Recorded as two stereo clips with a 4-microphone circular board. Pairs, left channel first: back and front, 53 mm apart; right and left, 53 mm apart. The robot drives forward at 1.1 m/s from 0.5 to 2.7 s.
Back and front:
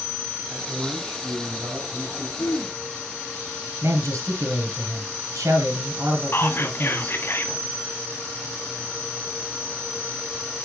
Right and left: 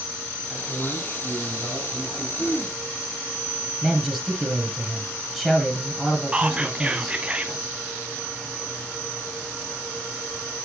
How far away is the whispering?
About 1.5 m.